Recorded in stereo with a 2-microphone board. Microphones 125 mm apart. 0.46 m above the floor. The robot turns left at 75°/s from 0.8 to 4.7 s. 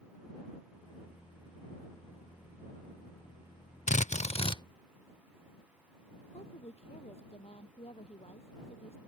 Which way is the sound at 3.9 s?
90° left.